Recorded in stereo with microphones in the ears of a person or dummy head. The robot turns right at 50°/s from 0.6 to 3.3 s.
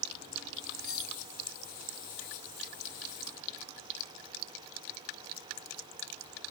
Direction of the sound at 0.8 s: 10° left (ahead or behind).